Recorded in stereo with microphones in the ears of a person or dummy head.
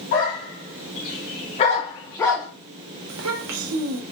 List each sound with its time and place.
0.1 s a dog barking: 50° left (ahead or behind), 1.7 m; by 2.5 s centre (ahead or behind), 0.5 m
3.1 s a child speaking: 85° right, 0.7 m